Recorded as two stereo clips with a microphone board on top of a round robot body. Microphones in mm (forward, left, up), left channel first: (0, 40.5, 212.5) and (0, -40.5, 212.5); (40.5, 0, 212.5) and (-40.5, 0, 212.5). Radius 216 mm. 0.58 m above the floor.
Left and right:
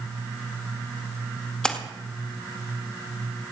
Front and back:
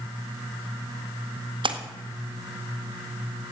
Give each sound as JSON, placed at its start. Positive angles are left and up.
{"t": 1.6, "sound": "a splash", "azimuth_deg": 170, "distance_m": 1.7}